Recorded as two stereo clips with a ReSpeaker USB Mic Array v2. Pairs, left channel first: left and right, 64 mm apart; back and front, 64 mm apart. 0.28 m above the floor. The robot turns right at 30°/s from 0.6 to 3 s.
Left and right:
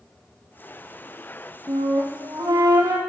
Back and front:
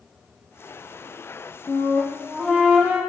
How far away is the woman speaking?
No woman speaking in this recording.